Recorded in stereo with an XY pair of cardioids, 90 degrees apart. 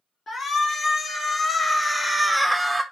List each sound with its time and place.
0.3 s a shout: 60° left, 1.5 m; by 2.8 s 20° right, 0.5 m